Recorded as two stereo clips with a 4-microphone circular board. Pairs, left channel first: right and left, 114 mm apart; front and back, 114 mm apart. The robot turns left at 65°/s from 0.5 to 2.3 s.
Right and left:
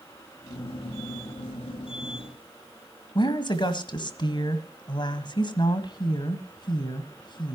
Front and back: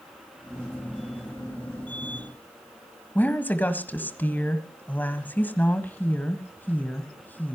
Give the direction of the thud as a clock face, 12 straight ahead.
No thud in this recording.